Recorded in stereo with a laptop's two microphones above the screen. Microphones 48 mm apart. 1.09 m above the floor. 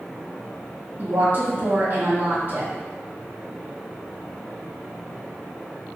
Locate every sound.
1.0 s a woman speaking: 40° right (ahead or behind), 1.8 m